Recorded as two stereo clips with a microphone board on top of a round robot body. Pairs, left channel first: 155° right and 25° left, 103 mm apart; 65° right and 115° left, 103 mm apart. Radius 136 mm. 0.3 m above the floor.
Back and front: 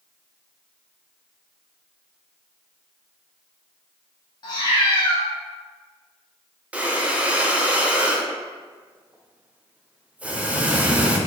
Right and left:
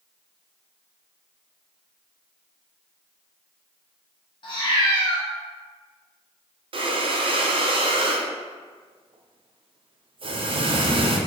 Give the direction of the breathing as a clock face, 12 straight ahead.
9 o'clock.